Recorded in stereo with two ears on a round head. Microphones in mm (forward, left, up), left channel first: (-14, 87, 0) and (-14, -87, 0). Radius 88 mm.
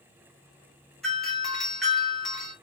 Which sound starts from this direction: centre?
A doorbell, at 1.0 s.